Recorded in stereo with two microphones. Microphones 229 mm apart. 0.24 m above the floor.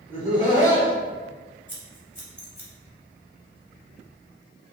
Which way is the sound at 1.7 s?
45° left (ahead or behind).